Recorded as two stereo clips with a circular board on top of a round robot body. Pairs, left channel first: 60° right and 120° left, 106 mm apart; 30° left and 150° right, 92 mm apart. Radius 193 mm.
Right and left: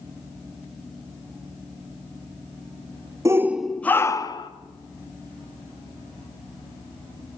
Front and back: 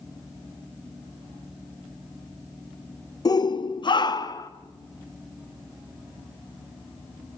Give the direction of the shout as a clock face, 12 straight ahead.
10 o'clock.